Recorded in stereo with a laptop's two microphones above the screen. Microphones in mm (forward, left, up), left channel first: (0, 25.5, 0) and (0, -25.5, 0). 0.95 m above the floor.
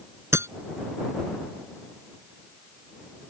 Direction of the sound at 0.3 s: 55° right (ahead or behind).